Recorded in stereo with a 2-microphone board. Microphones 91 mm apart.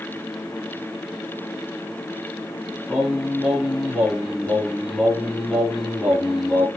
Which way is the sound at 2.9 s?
10° right (ahead or behind).